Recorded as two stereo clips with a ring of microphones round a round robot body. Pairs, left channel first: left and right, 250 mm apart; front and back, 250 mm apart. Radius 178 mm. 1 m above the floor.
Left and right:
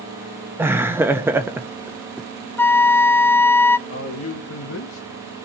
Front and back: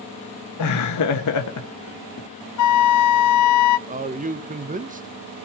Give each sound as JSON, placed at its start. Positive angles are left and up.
{"t": 0.6, "sound": "laughter", "azimuth_deg": -10, "distance_m": 0.9}
{"t": 2.6, "sound": "a flute", "azimuth_deg": 5, "distance_m": 0.5}
{"t": 3.9, "sound": "a man speaking", "azimuth_deg": 125, "distance_m": 1.1}